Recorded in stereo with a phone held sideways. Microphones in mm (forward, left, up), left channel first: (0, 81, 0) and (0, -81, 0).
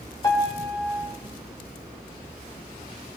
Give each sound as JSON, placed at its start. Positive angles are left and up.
{"t": 0.2, "sound": "a piano", "side_deg": 20, "distance_m": 1.5}